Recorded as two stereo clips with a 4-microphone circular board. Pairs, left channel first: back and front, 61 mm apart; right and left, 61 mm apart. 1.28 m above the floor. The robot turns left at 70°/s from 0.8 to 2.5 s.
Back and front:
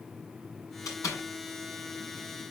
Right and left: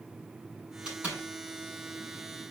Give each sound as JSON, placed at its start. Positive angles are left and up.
{"t": 0.8, "sound": "a door slam", "azimuth_deg": 165, "distance_m": 8.0}